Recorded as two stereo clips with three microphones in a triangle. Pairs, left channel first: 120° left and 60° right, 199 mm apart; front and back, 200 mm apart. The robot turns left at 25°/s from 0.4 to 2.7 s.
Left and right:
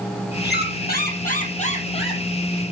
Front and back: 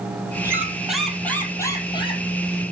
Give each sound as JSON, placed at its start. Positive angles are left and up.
{"t": 0.4, "sound": "a squeak", "azimuth_deg": 105, "distance_m": 1.9}